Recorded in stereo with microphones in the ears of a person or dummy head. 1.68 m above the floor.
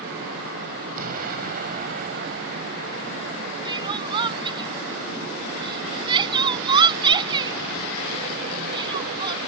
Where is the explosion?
50° right (ahead or behind).